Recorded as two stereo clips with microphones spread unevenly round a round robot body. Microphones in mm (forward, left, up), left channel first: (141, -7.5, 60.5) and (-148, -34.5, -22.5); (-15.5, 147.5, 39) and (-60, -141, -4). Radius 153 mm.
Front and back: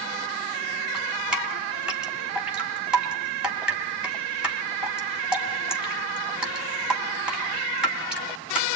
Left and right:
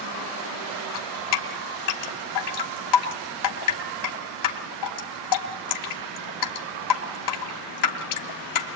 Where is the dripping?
100° left, 3 m.